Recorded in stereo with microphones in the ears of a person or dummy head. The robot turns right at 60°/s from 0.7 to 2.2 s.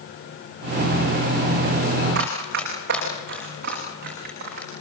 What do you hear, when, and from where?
2.1 s running footsteps: 50° right (ahead or behind), 7.5 m; by 4.7 s 45° right (ahead or behind), 8.5 m